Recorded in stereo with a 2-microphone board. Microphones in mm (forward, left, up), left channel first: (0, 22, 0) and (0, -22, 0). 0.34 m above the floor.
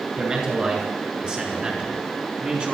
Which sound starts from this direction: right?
A man speaking, at 0.2 s.